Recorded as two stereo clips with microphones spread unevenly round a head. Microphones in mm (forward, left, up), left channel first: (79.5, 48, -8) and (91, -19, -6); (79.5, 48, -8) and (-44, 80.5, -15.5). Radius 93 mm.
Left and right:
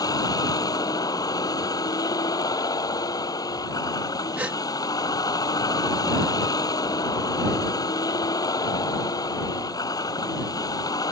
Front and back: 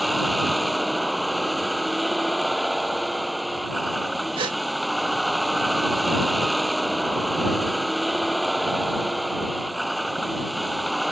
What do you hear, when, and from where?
0.0 s a vehicle: 75° left
4.4 s a gasp: 145° right